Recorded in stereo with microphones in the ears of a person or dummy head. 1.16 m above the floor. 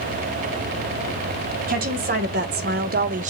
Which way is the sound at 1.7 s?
45° right (ahead or behind).